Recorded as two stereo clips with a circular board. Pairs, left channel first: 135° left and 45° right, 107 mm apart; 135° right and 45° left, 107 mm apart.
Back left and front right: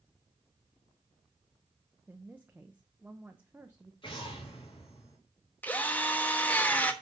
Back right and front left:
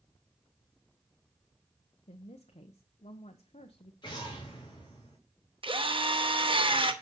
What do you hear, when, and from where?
2.1 s a woman speaking: 120° right, 0.8 m
4.0 s an explosion: straight behind, 3 m
5.6 s a drill: 60° left, 1.1 m